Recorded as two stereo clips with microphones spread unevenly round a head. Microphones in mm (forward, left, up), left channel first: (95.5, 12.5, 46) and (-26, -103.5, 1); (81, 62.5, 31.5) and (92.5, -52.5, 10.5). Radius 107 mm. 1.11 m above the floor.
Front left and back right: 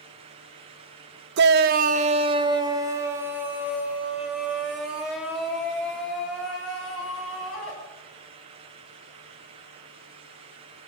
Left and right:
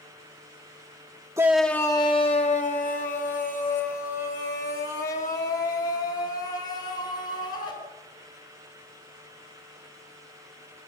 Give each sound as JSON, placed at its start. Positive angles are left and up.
{"t": 1.4, "sound": "a shout", "azimuth_deg": -160, "distance_m": 1.0}